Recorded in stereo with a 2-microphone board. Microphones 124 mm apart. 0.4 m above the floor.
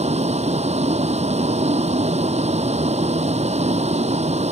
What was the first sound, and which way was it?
A vehicle, 60° right (ahead or behind).